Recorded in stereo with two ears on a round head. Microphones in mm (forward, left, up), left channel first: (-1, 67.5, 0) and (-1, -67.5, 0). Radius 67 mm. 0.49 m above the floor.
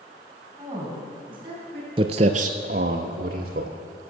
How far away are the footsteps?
About 0.5 m.